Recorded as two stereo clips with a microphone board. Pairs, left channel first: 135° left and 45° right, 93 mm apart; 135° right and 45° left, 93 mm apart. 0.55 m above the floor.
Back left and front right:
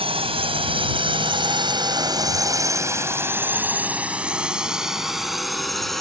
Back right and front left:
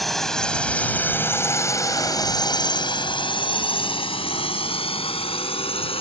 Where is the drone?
45° right; by 6.0 s 140° right.